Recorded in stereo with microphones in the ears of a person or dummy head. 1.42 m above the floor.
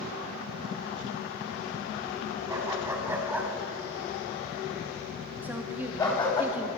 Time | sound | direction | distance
2.5 | a dog barking | 10° right (ahead or behind) | 5 m
5.4 | a woman speaking | 5° right (ahead or behind) | 2.5 m